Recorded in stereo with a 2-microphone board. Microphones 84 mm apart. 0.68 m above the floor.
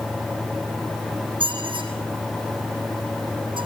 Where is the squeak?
80° right, 5 m.